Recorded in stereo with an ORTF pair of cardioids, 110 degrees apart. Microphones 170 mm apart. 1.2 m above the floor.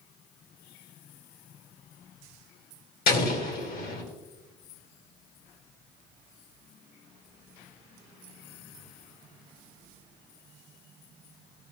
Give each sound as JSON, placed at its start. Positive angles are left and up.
{"t": 3.1, "sound": "an explosion", "azimuth_deg": 60, "distance_m": 2.0}